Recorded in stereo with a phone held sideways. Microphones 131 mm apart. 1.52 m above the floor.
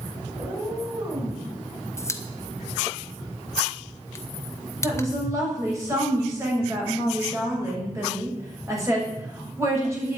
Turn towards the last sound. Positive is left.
turn(degrees=-25)  # may be behind; listen again after turning